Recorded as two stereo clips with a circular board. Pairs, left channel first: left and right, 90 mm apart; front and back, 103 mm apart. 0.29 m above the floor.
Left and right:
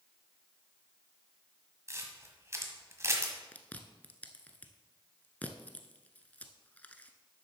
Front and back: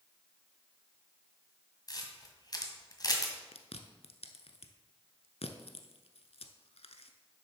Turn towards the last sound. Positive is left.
turn(degrees=15)